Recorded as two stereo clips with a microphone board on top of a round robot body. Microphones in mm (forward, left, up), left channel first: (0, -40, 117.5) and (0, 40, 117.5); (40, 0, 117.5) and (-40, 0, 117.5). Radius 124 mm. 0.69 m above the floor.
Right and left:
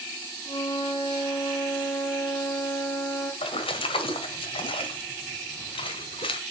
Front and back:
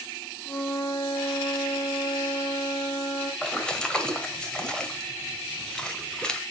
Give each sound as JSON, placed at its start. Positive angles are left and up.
{"t": 0.5, "sound": "a flute", "azimuth_deg": -65, "distance_m": 6.5}
{"t": 3.4, "sound": "a splash", "azimuth_deg": -80, "distance_m": 1.8}